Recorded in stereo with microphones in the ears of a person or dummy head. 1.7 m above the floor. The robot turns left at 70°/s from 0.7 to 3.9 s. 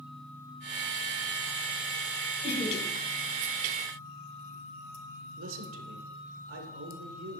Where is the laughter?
35° left (ahead or behind), 4.5 m; by 2.8 s 65° left (ahead or behind), 4.5 m.